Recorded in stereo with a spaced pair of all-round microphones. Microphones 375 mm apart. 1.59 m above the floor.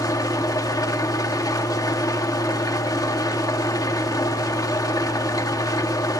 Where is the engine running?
10° left (ahead or behind), 1.7 m.